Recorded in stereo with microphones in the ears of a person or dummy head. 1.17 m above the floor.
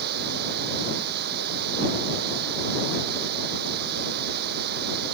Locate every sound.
0.0 s running water: 55° right (ahead or behind)